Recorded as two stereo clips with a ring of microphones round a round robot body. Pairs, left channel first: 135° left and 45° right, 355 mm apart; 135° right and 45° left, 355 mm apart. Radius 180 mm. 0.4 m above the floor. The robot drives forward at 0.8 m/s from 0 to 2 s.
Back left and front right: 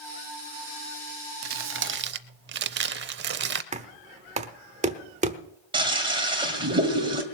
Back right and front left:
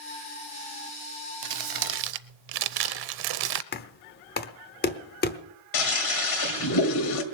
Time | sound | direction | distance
1.4 | crumpling | 10° left | 1.1 m
3.7 | knocking | 100° right | 0.9 m
5.7 | a toilet flushing | 120° right | 2 m